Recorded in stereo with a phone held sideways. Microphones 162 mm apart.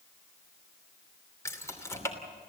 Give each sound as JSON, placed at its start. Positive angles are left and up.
{"t": 1.4, "sound": "keys jangling", "side_deg": 15, "distance_m": 2.5}